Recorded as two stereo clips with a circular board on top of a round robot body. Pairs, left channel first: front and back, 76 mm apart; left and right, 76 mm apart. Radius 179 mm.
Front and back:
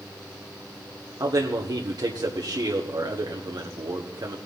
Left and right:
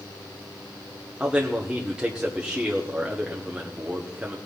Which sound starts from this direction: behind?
A man speaking, at 1.2 s.